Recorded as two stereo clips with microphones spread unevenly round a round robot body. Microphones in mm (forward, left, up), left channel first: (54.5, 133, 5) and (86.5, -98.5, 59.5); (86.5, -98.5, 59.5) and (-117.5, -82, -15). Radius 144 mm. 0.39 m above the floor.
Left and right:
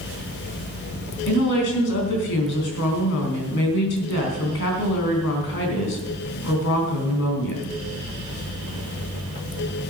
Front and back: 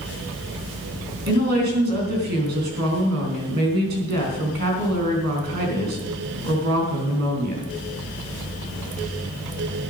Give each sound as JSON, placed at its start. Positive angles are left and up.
{"t": 1.3, "sound": "a woman speaking", "azimuth_deg": 135, "distance_m": 3.5}